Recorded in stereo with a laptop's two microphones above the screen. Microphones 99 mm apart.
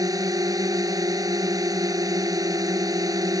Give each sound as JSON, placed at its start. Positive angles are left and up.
{"t": 0.0, "sound": "a drone", "side_deg": -35}